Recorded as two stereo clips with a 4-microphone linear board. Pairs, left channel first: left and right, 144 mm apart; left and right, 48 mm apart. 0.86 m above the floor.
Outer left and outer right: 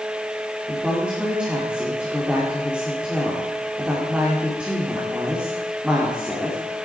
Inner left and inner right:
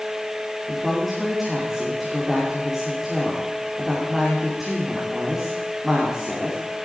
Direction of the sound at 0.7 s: 5° right (ahead or behind).